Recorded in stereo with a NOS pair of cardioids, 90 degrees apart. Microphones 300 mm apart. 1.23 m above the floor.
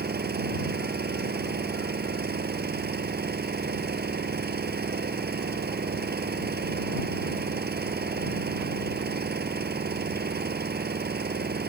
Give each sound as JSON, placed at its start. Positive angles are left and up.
{"t": 0.0, "sound": "an engine running", "azimuth_deg": -30}